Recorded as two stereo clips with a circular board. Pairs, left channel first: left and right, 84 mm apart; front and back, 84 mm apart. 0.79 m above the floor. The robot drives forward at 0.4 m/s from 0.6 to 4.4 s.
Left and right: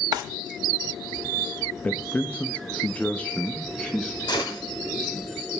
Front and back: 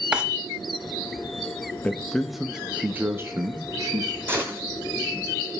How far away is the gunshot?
About 1.8 m.